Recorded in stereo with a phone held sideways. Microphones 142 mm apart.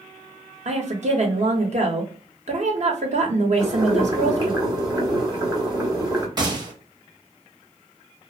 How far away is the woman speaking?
About 0.9 m.